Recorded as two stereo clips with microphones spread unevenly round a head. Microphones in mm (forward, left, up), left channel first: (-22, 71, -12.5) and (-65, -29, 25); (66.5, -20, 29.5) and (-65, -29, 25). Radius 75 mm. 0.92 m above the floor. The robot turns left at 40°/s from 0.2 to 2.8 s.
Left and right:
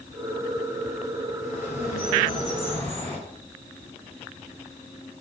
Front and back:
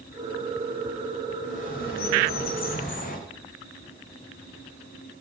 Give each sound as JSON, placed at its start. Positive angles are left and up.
{"t": 1.4, "sound": "a bird", "azimuth_deg": 45, "distance_m": 5.0}